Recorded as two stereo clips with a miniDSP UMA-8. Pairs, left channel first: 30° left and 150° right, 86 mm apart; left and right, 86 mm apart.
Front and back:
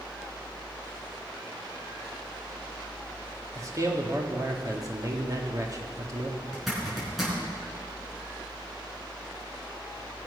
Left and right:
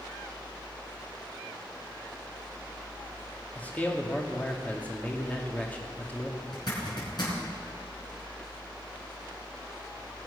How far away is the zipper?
About 5 m.